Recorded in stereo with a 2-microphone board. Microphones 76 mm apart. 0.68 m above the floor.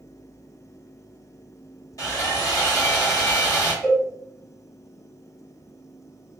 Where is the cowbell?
10° right (ahead or behind), 1.6 m.